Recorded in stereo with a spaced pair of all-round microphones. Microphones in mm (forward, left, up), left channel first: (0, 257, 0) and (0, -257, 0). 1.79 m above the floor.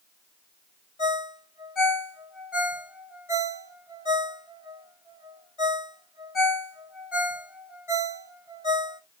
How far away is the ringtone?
About 2 m.